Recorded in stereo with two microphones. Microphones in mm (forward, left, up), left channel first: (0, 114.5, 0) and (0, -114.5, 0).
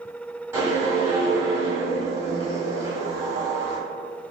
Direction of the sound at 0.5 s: 10° right (ahead or behind).